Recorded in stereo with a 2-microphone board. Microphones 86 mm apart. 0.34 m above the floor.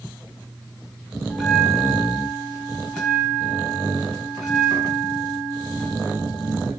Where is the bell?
5° left (ahead or behind), 4.5 m.